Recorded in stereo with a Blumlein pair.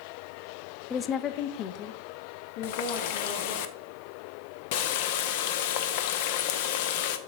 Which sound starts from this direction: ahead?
A woman speaking, at 0.9 s.